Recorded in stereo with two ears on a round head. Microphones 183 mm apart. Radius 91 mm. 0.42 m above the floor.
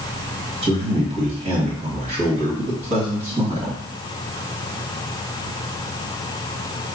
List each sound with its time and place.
0.6 s a man speaking: 35° right (ahead or behind), 2 m